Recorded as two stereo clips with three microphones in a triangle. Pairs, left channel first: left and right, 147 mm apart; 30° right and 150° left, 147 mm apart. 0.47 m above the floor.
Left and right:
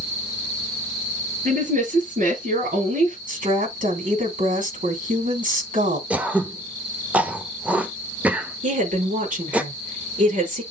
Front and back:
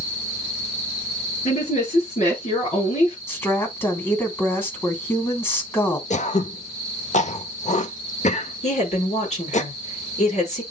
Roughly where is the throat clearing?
Ahead.